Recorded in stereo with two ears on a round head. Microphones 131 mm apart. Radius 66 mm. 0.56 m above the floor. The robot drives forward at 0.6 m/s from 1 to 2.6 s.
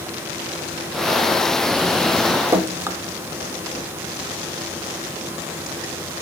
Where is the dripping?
20° right (ahead or behind), 0.6 m; by 3.0 s 15° right (ahead or behind), 0.6 m.